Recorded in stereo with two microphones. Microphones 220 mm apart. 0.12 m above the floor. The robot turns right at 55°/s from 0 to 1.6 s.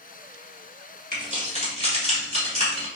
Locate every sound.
1.1 s keys jangling: 40° right (ahead or behind), 1.3 m; by 2.9 s 30° right (ahead or behind), 1.3 m